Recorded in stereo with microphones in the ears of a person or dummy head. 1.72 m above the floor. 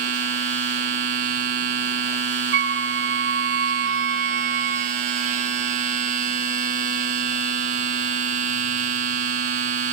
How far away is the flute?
About 0.6 m.